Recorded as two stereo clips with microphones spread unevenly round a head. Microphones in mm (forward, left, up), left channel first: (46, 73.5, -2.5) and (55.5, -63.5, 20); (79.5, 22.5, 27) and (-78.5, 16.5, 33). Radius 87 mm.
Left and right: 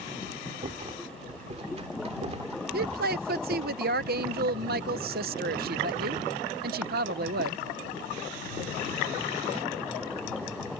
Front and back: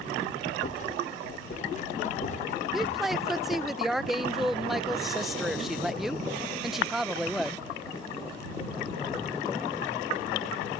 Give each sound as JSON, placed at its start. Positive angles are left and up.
{"t": 0.6, "sound": "a rattle", "azimuth_deg": -45}
{"t": 2.7, "sound": "a woman speaking", "azimuth_deg": -90}